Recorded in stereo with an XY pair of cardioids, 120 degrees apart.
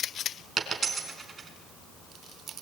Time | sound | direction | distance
0.6 | a dropped coin | 30° right | 4 m